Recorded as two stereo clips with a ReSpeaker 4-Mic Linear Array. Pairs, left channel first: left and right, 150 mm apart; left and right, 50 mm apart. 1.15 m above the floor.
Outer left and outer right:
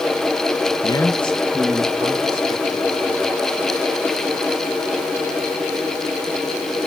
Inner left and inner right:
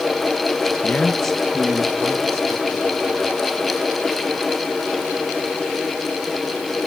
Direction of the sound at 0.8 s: 35° left (ahead or behind).